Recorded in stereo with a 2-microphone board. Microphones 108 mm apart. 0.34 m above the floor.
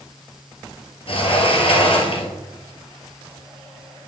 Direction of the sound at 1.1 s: 60° left (ahead or behind).